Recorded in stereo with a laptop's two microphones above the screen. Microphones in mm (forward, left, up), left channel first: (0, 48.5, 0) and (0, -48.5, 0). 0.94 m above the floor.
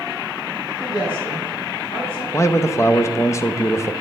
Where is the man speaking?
30° left (ahead or behind), 0.6 m.